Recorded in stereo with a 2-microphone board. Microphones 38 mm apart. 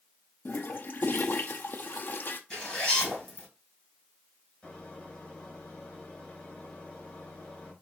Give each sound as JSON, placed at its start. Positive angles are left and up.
{"t": 0.5, "sound": "a toilet flushing", "side_deg": 55, "distance_m": 0.5}
{"t": 2.5, "sound": "a zipper", "side_deg": 25, "distance_m": 3.5}
{"t": 4.6, "sound": "a microwave", "side_deg": 25, "distance_m": 3.0}